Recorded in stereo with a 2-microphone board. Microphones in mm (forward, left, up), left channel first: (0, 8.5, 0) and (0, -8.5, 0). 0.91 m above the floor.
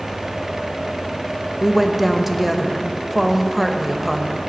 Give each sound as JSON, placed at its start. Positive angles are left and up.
{"t": 1.6, "sound": "a woman speaking", "side_deg": -5, "distance_m": 0.7}